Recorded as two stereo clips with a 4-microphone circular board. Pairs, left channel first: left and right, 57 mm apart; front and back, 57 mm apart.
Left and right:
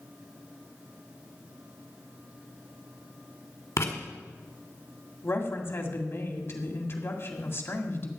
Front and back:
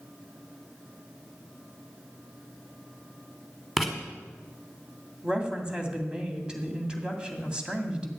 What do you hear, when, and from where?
3.8 s writing: 95° left, 1.9 m
5.2 s a woman speaking: 110° left, 2 m